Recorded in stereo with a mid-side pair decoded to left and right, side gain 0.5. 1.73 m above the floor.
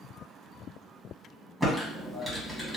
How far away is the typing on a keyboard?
About 1.5 m.